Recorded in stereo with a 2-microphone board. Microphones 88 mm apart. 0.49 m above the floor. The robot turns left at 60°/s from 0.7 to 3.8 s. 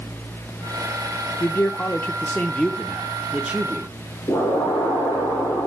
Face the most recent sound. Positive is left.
turn(degrees=50)  # may be behind; listen again after turning